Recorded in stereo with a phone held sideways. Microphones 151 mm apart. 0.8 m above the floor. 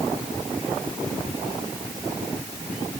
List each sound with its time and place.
Only background noise.